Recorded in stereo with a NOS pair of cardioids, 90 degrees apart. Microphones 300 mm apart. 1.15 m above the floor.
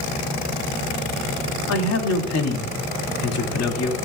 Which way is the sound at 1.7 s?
60° left.